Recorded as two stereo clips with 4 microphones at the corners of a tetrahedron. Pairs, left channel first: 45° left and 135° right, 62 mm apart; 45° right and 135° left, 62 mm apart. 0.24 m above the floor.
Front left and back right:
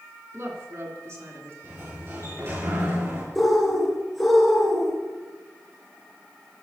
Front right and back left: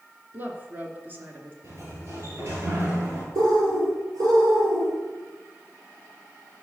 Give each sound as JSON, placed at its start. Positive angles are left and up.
{"t": 0.3, "sound": "a woman speaking", "azimuth_deg": -170, "distance_m": 2.5}
{"t": 1.6, "sound": "a sliding door", "azimuth_deg": 180, "distance_m": 5.0}
{"t": 3.4, "sound": "a bird", "azimuth_deg": 135, "distance_m": 4.0}